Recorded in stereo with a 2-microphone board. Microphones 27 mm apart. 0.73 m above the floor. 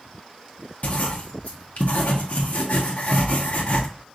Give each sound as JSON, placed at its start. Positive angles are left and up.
{"t": 0.8, "sound": "writing", "side_deg": 60, "distance_m": 1.0}